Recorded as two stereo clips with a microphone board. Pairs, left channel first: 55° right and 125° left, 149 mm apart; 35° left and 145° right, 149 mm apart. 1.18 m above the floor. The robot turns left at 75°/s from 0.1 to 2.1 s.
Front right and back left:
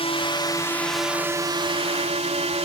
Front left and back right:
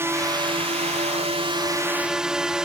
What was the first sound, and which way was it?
A drone, 80° right.